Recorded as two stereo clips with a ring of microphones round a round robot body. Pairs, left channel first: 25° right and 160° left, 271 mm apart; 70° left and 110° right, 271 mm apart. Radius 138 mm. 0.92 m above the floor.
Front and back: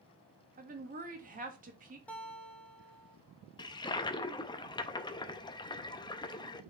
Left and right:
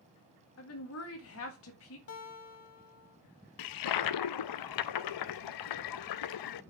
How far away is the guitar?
About 0.9 m.